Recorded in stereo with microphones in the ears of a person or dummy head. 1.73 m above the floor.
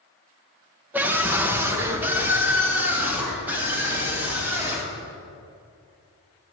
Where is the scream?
10° right (ahead or behind), 1.0 m.